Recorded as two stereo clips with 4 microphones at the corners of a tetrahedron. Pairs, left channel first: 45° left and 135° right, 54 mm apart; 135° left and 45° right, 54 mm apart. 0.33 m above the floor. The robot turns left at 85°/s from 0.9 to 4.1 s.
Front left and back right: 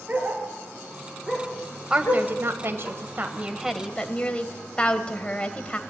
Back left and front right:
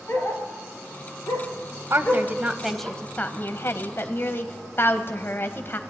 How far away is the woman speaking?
About 1.4 m.